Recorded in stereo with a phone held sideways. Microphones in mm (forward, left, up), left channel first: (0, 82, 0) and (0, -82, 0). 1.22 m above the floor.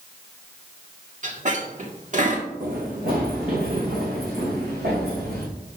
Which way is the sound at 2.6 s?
55° right (ahead or behind).